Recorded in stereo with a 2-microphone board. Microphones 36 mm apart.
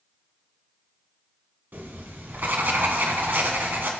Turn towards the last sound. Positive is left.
turn(degrees=-70)  # may be behind; listen again after turning